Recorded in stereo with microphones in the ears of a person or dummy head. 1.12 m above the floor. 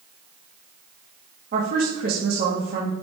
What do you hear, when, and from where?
1.5 s a woman speaking: 50° right (ahead or behind), 2 m